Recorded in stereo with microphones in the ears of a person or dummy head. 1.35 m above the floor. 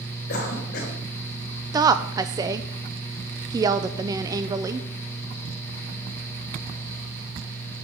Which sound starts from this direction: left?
A cough, at 0.3 s.